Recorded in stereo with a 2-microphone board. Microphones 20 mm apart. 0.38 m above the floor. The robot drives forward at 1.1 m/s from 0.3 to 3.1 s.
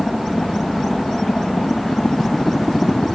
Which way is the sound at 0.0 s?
45° left (ahead or behind).